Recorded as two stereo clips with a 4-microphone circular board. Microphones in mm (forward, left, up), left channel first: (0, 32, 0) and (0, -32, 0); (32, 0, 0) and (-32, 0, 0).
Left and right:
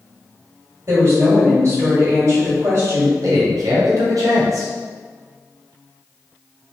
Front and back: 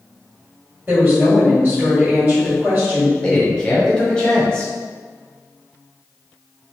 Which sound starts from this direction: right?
A man speaking, at 3.2 s.